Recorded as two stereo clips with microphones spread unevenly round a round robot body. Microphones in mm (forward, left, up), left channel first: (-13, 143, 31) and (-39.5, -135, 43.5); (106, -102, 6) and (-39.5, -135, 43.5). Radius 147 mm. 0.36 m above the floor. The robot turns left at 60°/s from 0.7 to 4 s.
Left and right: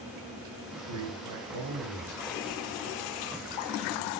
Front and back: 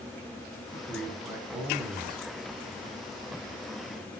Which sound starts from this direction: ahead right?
A man speaking, at 0.7 s.